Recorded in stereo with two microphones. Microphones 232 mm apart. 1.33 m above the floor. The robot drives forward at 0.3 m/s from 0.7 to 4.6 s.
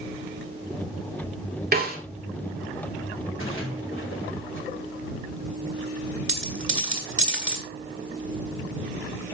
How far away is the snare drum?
About 2 m.